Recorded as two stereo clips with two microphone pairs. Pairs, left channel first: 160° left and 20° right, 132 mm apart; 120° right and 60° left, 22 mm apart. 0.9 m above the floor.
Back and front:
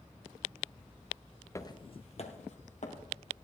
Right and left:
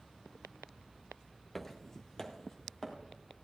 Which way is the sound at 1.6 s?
175° right.